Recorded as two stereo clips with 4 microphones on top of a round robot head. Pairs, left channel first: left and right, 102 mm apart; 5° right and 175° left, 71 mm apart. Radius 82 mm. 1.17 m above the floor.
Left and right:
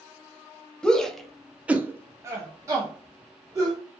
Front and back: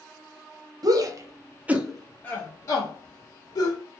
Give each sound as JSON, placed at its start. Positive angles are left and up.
{"t": 0.8, "sound": "a shout", "azimuth_deg": 170, "distance_m": 0.8}